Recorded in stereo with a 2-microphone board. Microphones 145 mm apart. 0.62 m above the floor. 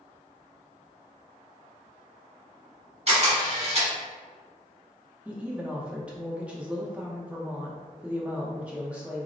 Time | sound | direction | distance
3.1 | a camera shutter | 45° right (ahead or behind) | 1.6 m
5.2 | a woman speaking | 10° right (ahead or behind) | 0.6 m